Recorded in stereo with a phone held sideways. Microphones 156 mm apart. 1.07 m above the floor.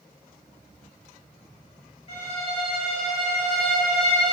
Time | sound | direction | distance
2.1 | a violin | 40° left (ahead or behind) | 1.0 m